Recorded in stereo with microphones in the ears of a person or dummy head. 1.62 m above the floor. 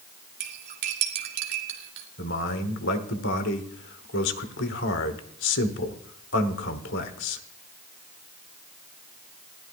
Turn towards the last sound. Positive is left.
turn(degrees=60)  # may be behind; listen again after turning